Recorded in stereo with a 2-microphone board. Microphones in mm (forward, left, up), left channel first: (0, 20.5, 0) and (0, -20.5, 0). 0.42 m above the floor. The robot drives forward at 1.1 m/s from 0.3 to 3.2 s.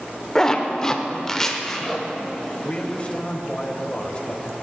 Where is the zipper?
15° left (ahead or behind), 1.0 m; by 2.1 s 10° left (ahead or behind), 1.5 m.